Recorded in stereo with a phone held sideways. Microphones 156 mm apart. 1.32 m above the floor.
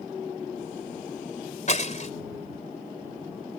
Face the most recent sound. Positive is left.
turn(degrees=50)  # may be behind; listen again after turning